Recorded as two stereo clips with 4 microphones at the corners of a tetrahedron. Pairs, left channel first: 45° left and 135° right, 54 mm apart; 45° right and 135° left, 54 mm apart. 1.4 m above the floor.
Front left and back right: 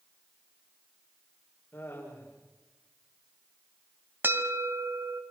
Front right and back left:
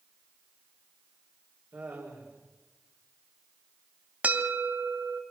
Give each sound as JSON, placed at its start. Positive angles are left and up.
{"t": 1.7, "sound": "laughter", "azimuth_deg": 100, "distance_m": 5.5}
{"t": 4.2, "sound": "a bell", "azimuth_deg": -170, "distance_m": 2.0}